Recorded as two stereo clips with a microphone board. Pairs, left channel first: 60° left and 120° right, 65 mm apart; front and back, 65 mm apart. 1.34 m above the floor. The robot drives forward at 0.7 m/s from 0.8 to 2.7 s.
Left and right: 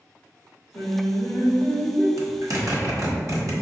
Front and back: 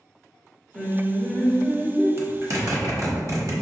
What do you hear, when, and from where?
0.7 s singing: 65° left, 1.4 m; by 2.1 s 120° left, 1.4 m
2.2 s a zipper: 140° right, 1.0 m; by 3.5 s 155° right, 1.3 m